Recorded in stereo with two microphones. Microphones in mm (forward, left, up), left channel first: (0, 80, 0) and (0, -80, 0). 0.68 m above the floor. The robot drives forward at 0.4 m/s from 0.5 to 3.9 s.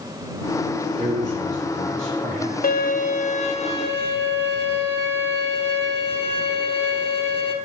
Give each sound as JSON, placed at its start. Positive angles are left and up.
{"t": 1.0, "sound": "a man speaking", "side_deg": -45, "distance_m": 2.5}
{"t": 2.6, "sound": "a violin", "side_deg": 65, "distance_m": 0.5}